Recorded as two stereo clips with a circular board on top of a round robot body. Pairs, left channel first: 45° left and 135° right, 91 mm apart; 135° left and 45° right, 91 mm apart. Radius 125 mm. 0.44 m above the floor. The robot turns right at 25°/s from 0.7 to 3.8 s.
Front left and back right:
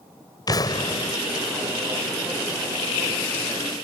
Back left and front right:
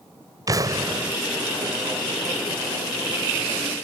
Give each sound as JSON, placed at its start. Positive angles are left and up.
{"t": 0.5, "sound": "an explosion", "azimuth_deg": 0}